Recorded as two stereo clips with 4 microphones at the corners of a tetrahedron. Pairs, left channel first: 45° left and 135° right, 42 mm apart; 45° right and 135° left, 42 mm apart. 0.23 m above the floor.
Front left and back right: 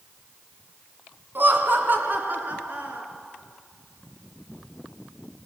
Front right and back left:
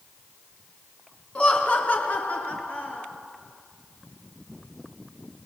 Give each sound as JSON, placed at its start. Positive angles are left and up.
{"t": 1.4, "sound": "laughter", "azimuth_deg": -105, "distance_m": 2.5}